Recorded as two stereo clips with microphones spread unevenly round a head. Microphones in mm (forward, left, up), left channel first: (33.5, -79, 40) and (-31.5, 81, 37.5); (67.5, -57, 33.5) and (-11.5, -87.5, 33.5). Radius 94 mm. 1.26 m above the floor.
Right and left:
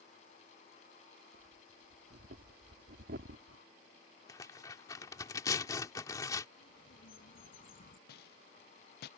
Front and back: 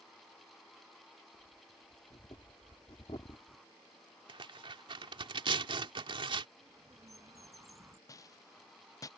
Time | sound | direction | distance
1.3 | breathing | 75° left | ?
4.3 | tearing paper | 140° right | ?
6.6 | a bird | 110° right | ?
8.1 | a rattle | 35° right | ?